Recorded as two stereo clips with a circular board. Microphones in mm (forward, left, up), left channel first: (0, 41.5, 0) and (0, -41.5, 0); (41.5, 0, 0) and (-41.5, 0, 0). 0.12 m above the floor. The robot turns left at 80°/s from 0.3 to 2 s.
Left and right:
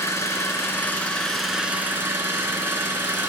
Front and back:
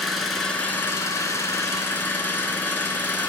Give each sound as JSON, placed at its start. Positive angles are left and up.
{"t": 0.0, "sound": "an engine running", "azimuth_deg": 85, "distance_m": 0.8}